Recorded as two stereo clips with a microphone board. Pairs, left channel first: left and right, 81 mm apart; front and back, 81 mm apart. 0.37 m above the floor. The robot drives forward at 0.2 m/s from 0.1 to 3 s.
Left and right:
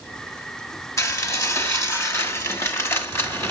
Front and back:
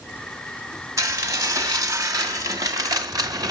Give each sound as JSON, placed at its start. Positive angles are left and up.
{"t": 1.0, "sound": "dishes clattering", "azimuth_deg": 135, "distance_m": 1.8}